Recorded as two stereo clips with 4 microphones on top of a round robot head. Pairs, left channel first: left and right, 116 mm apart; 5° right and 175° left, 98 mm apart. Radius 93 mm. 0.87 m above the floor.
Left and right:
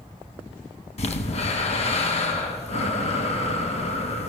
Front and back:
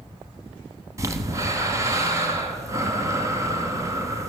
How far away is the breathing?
About 2 m.